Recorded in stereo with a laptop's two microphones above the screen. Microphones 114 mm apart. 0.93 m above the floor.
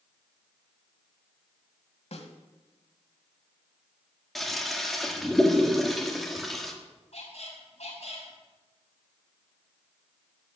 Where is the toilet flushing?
Centre (ahead or behind), 1.5 m.